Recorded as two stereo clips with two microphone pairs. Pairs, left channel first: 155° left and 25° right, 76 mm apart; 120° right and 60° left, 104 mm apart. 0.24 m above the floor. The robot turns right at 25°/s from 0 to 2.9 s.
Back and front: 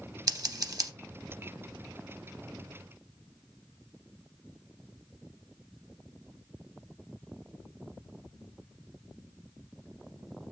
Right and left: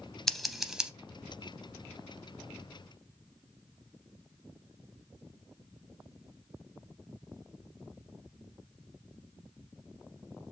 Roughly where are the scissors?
Ahead right.